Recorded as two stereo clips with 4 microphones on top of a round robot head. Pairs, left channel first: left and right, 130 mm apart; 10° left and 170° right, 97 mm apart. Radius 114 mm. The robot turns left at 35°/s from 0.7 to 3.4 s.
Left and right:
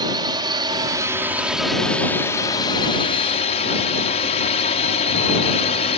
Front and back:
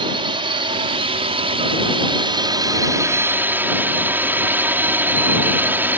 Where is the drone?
145° right; by 6.0 s 120° left.